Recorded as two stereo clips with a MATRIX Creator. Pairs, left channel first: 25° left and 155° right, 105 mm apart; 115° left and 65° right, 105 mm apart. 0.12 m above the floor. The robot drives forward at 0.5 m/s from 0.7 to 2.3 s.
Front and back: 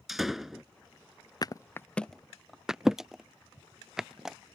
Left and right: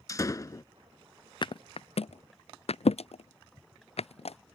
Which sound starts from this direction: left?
A thud, at 1.4 s.